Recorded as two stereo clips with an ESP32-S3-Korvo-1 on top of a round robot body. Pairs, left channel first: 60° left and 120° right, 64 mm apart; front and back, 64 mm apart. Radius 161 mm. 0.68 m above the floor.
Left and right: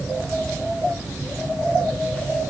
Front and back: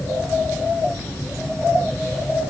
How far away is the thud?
No thud in this recording.